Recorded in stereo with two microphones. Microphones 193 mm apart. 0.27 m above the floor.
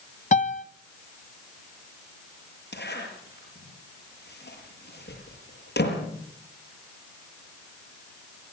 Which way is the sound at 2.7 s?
65° left (ahead or behind).